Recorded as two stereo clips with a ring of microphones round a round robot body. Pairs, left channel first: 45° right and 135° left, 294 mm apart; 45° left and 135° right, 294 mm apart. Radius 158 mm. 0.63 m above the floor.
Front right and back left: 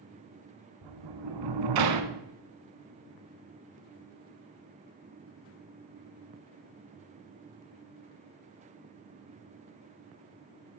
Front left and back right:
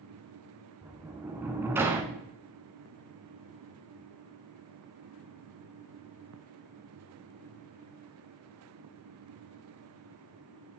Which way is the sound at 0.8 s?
140° left.